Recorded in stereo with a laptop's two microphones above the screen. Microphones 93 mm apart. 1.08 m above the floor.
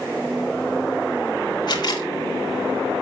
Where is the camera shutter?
50° left (ahead or behind), 3 m.